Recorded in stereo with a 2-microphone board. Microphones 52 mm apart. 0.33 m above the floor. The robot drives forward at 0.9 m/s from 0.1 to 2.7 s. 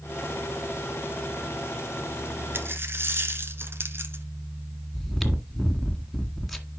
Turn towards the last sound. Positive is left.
turn(degrees=0)  # may be behind; listen again after turning